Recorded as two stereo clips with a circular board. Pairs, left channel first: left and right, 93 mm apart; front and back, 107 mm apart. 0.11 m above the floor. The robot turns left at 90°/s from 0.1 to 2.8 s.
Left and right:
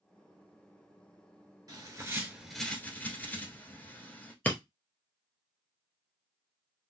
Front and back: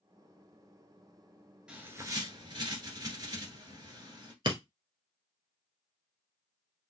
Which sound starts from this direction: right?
A bird, at 1.7 s.